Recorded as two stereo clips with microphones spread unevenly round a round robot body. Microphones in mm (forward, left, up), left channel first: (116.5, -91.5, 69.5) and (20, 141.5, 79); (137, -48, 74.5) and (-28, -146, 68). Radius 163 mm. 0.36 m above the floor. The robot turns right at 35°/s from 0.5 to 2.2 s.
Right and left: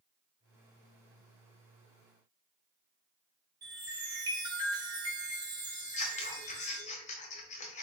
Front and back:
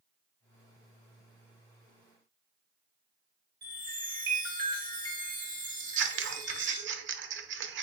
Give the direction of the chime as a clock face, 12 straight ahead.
6 o'clock.